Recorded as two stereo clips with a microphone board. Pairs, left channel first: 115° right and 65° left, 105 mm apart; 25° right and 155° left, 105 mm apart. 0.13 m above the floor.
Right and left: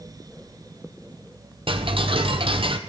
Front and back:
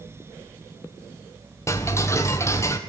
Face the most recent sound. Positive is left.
turn(degrees=40)